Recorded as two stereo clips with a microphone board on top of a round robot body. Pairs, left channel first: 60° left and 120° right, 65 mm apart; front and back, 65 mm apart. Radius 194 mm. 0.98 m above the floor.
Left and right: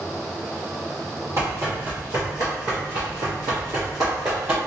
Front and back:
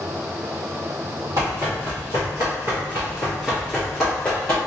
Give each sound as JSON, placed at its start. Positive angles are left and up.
{"t": 1.4, "sound": "running footsteps", "azimuth_deg": -160, "distance_m": 2.0}